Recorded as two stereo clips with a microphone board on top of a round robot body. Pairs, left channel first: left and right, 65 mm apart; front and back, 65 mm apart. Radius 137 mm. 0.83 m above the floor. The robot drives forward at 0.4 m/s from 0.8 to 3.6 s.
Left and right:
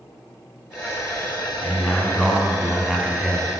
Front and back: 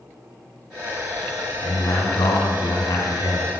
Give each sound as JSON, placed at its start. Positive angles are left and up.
{"t": 1.6, "sound": "a man speaking", "azimuth_deg": 5, "distance_m": 3.0}